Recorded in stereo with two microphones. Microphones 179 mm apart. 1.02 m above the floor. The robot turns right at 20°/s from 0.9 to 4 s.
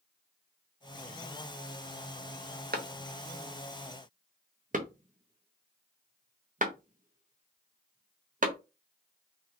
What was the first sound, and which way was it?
A clap, 65° right (ahead or behind).